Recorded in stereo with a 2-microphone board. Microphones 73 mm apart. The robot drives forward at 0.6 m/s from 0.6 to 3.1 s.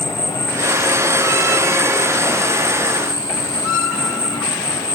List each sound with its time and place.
0.0 s an insect: 80° left